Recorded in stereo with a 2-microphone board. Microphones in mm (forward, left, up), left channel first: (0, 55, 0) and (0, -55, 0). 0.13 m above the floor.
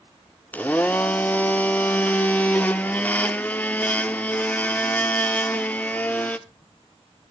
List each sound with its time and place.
0.5 s a blender: 15° left (ahead or behind), 0.6 m